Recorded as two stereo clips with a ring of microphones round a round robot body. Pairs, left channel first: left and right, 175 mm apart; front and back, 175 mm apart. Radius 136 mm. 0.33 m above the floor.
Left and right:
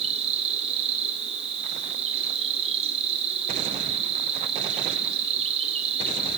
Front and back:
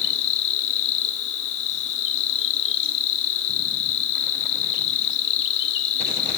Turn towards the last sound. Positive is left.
turn(degrees=-25)